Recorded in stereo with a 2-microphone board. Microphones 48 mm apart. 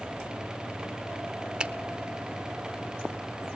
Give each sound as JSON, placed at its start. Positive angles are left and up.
{"t": 1.6, "sound": "a finger snap", "side_deg": -20, "distance_m": 0.5}